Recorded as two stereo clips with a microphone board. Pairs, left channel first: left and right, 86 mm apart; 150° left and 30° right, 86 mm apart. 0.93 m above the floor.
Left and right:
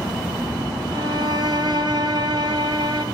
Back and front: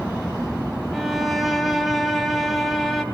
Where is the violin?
120° right, 2 m.